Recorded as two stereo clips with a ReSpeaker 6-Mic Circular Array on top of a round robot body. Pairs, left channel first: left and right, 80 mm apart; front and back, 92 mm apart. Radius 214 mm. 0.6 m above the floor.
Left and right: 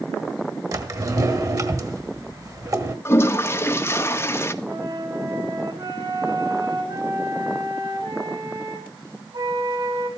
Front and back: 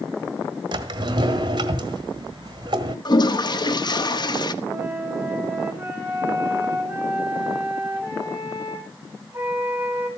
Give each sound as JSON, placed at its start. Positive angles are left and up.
{"t": 0.7, "sound": "a drawer", "azimuth_deg": -135, "distance_m": 1.7}
{"t": 3.0, "sound": "a toilet flushing", "azimuth_deg": 35, "distance_m": 1.6}
{"t": 4.6, "sound": "a flute", "azimuth_deg": -110, "distance_m": 7.5}